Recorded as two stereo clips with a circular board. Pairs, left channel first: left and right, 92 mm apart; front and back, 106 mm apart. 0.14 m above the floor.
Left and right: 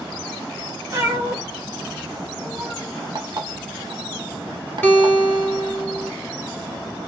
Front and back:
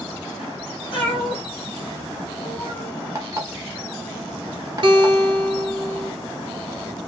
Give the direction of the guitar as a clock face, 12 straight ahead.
7 o'clock.